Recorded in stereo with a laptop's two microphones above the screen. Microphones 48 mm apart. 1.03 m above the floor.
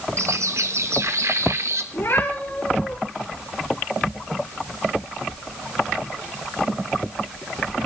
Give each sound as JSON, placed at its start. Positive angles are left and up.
{"t": 0.2, "sound": "a bird", "side_deg": -65, "distance_m": 1.2}
{"t": 1.9, "sound": "a cat meowing", "side_deg": 60, "distance_m": 10.0}